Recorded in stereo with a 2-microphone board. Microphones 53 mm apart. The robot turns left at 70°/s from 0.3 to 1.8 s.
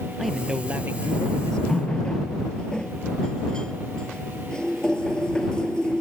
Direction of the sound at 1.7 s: 10° left (ahead or behind).